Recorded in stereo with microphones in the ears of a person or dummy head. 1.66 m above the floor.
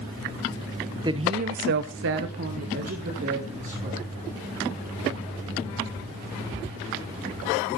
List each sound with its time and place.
1.0 s a woman speaking: 20° right (ahead or behind), 1.1 m; by 4.1 s 40° right (ahead or behind), 3.5 m